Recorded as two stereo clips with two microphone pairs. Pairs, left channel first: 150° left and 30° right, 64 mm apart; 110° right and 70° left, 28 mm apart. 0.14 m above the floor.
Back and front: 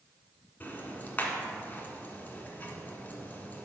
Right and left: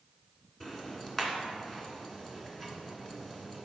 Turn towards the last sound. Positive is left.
turn(degrees=-175)